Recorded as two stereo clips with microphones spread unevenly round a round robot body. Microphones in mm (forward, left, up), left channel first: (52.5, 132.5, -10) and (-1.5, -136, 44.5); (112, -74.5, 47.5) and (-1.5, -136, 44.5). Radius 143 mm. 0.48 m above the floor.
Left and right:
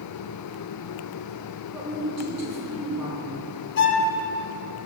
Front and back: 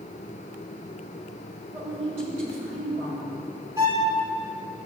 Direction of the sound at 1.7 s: 170° left.